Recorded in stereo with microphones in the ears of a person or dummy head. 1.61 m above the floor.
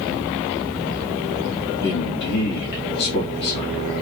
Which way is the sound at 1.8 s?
60° left (ahead or behind).